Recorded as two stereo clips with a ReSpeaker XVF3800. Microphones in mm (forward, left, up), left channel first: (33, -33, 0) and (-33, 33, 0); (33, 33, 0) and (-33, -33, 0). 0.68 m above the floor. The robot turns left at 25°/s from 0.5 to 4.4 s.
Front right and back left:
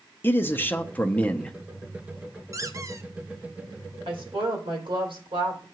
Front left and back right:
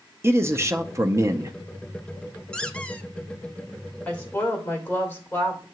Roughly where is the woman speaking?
Behind left.